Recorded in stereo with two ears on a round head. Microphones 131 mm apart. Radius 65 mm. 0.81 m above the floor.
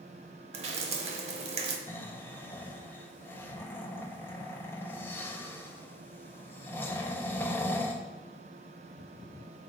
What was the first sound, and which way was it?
Dripping, 45° right (ahead or behind).